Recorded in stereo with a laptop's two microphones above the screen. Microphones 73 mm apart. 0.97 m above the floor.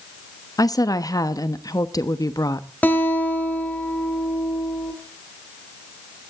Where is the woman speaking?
55° left (ahead or behind), 1.0 m.